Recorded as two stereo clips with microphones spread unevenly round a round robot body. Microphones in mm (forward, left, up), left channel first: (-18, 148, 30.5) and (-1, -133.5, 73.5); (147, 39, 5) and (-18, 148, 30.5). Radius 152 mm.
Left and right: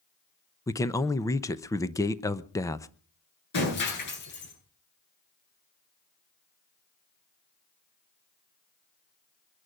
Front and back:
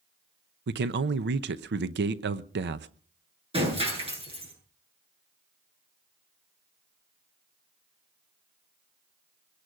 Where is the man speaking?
165° left, 0.8 m.